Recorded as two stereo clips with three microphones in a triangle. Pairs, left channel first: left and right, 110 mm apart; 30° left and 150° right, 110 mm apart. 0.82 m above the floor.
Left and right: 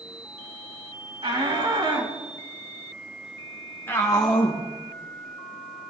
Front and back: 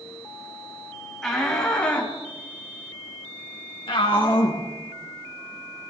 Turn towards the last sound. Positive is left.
turn(degrees=60)